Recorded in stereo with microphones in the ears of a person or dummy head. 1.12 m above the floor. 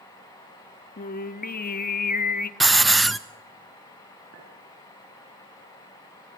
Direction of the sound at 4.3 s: 70° right (ahead or behind).